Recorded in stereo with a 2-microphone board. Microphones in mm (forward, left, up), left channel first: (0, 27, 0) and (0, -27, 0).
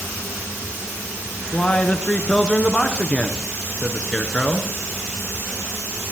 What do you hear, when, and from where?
1.5 s a man speaking: 20° left (ahead or behind), 1.3 m